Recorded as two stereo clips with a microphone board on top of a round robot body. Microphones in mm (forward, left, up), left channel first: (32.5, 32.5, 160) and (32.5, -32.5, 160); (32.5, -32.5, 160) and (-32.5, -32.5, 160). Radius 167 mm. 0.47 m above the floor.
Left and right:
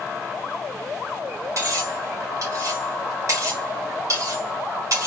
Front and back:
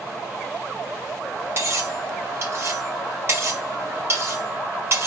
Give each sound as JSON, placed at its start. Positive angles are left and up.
{"t": 1.6, "sound": "cutlery clinking", "azimuth_deg": -130, "distance_m": 1.6}